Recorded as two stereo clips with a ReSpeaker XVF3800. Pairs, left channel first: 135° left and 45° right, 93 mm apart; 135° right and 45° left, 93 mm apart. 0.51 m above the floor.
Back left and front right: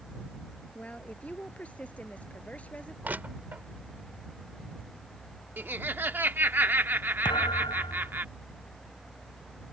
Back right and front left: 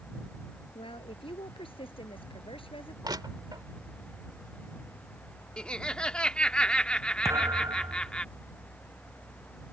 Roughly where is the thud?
Left.